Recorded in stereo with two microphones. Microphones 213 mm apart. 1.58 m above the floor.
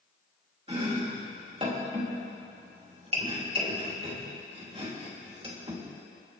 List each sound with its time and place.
0.7 s chopping: 25° right (ahead or behind), 2.5 m